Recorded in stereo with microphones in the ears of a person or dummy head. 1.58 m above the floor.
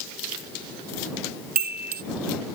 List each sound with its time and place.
1.6 s a chime: 45° right (ahead or behind)